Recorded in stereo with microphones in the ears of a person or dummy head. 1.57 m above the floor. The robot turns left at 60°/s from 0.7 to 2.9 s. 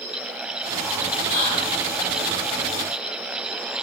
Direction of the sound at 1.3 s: 50° left.